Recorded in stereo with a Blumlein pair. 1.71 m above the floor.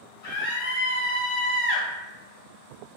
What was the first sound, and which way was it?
A scream, 40° left.